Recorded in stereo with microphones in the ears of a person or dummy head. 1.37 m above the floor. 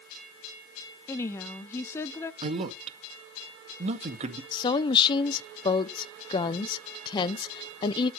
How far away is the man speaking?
About 1.8 m.